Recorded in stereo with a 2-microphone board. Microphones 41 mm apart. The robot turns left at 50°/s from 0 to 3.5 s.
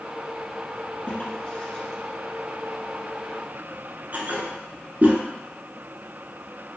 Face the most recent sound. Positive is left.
turn(degrees=-40)  # may be behind; listen again after turning